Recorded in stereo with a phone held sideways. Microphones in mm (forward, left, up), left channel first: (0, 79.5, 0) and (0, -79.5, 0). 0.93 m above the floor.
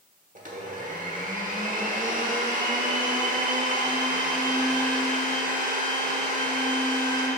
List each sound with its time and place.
0.3 s a blender: 55° right (ahead or behind), 1.1 m